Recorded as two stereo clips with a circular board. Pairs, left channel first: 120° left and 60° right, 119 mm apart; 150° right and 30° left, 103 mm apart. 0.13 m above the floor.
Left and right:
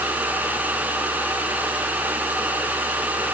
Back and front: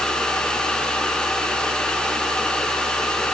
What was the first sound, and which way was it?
Only background noise.